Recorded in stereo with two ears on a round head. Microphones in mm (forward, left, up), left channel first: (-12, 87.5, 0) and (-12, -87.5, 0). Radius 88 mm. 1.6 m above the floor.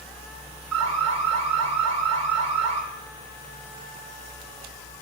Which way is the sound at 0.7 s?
85° right.